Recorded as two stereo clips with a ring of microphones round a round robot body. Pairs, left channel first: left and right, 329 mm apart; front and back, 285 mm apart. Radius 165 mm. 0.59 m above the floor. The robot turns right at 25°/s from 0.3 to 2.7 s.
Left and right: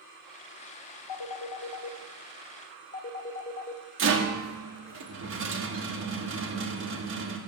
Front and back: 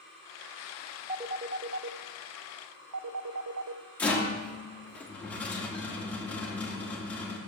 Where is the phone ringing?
110° left, 0.7 m; by 3.8 s 150° left, 0.7 m.